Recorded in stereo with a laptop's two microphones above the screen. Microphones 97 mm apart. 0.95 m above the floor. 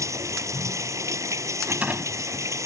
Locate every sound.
0.0 s running water: 30° right (ahead or behind)
1.6 s a rattle: 15° right (ahead or behind)